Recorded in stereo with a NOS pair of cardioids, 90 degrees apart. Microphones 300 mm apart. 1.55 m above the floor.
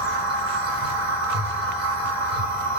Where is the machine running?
55° right, 1.4 m.